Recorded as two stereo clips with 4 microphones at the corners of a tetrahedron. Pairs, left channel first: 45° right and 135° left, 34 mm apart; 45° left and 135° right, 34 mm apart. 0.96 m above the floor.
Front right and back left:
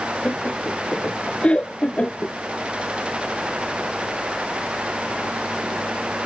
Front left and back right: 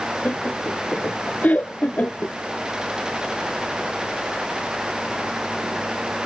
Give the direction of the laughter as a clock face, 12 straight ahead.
12 o'clock.